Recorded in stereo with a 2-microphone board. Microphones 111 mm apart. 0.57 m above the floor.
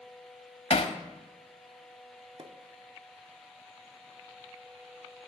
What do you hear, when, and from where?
0.7 s hammering: 70° left (ahead or behind), 0.7 m
2.4 s a pop: 50° right (ahead or behind), 0.7 m